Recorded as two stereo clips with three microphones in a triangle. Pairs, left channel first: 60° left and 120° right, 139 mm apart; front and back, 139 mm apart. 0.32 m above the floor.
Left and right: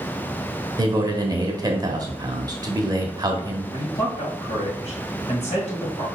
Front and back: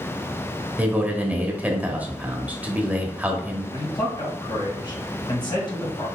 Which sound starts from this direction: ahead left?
A man speaking, at 3.7 s.